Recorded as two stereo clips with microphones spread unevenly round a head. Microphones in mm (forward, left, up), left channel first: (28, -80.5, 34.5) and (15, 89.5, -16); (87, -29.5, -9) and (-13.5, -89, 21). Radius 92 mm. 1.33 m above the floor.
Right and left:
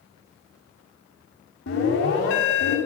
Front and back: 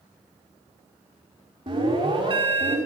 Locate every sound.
1.7 s an alarm: 100° right, 7.5 m